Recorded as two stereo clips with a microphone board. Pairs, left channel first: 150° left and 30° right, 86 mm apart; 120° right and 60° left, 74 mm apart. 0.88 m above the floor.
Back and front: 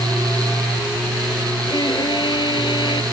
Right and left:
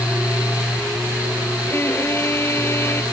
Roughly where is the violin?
Behind.